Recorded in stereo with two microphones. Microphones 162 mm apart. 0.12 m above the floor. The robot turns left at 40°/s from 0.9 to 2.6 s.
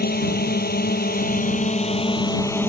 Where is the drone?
80° left; by 2.7 s 15° left.